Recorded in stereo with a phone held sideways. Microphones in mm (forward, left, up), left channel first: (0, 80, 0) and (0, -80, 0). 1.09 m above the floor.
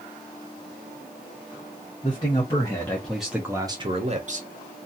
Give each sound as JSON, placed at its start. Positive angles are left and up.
{"t": 2.0, "sound": "a man speaking", "side_deg": 30, "distance_m": 1.2}